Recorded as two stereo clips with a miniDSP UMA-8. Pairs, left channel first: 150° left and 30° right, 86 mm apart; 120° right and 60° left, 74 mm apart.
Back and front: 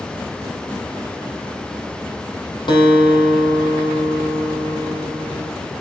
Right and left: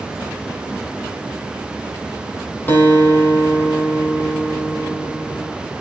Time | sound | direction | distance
2.7 | a guitar | 175° left | 4.5 m